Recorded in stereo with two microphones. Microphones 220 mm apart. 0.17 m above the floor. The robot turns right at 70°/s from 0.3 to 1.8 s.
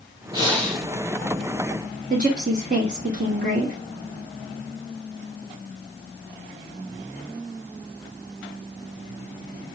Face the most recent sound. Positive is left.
turn(degrees=-40)  # may be behind; listen again after turning